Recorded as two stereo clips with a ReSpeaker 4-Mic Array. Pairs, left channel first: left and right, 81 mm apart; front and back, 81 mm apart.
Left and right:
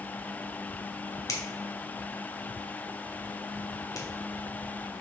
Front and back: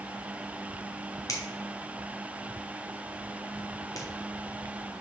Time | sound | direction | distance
1.3 | a finger snap | 45° left | 1.8 m